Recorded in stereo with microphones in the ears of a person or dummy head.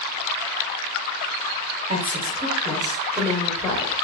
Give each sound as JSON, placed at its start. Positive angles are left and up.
{"t": 1.9, "sound": "a woman speaking", "side_deg": -30, "distance_m": 1.5}